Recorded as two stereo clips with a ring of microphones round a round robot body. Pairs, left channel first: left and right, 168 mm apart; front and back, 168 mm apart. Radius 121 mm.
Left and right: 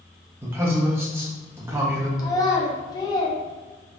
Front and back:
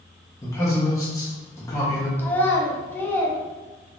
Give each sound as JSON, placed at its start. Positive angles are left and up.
{"t": 0.4, "sound": "a man speaking", "azimuth_deg": -35, "distance_m": 0.6}
{"t": 2.2, "sound": "a child speaking", "azimuth_deg": 65, "distance_m": 0.6}